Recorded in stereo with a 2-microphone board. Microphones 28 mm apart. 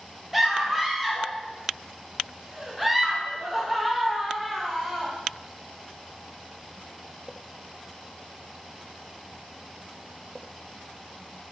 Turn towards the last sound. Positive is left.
turn(degrees=-5)  # may be behind; listen again after turning